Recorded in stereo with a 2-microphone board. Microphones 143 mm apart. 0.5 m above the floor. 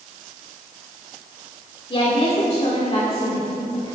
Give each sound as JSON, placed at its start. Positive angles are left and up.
{"t": 1.9, "sound": "a woman speaking", "side_deg": 35, "distance_m": 1.5}